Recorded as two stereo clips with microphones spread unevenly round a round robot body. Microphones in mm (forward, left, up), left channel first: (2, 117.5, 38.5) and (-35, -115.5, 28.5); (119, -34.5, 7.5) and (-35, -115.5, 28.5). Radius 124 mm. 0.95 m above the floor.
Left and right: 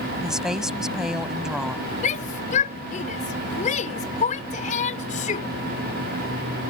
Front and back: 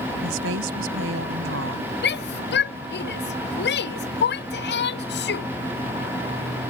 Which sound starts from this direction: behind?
A woman speaking, at 0.2 s.